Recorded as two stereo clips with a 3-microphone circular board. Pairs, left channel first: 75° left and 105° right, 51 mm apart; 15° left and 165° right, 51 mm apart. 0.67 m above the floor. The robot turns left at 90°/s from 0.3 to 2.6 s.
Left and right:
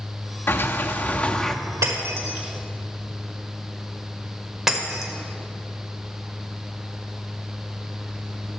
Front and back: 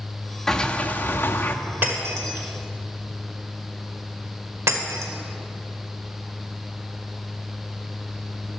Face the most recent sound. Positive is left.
turn(degrees=175)